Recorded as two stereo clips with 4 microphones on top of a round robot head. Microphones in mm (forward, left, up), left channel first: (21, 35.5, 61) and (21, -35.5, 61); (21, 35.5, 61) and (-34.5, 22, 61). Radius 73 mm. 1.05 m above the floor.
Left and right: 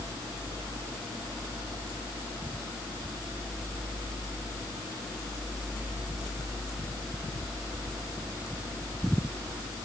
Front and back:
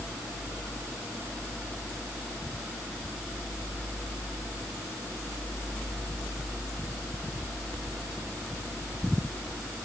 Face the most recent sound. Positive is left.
No sound to turn to.